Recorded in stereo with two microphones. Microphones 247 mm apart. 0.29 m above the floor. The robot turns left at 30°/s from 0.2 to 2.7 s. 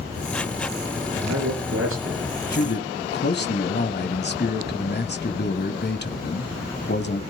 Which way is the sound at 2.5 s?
40° left (ahead or behind).